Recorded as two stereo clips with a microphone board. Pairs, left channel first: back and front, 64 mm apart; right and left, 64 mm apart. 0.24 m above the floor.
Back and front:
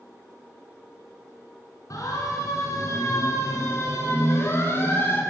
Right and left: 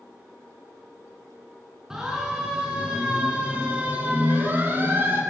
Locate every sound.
1.9 s a siren: 170° left, 4 m; by 5.2 s 135° left, 3 m